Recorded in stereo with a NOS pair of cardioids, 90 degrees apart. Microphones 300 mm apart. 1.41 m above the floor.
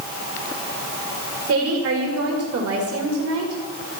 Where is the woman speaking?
50° right, 2.5 m.